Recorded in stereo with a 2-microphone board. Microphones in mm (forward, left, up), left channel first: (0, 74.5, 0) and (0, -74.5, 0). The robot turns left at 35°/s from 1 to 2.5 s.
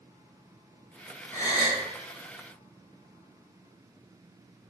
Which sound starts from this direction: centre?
A gasp, at 1.3 s.